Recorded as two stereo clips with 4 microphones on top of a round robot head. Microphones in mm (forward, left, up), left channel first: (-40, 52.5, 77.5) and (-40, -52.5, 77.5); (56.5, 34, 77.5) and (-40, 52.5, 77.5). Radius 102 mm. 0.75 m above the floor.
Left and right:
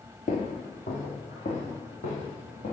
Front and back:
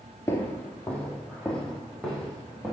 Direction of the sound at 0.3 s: 50° left.